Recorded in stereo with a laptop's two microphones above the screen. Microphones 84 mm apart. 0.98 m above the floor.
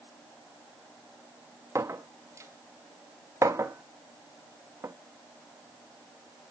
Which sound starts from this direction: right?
A clink, at 1.8 s.